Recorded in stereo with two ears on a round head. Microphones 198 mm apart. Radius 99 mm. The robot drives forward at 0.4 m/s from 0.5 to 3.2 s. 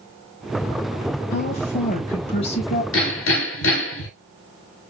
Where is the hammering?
70° left (ahead or behind), 3.5 m; by 4.1 s 65° left (ahead or behind), 3.5 m.